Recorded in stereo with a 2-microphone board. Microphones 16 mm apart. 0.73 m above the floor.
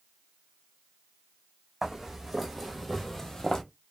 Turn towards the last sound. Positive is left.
turn(degrees=35)  # may be behind; listen again after turning